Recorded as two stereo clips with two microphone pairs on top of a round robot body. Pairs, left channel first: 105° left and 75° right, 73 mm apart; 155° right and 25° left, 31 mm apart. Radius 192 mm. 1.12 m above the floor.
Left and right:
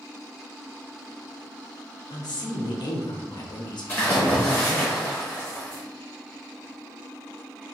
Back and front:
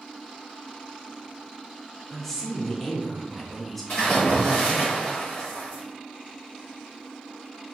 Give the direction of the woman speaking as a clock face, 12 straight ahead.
8 o'clock.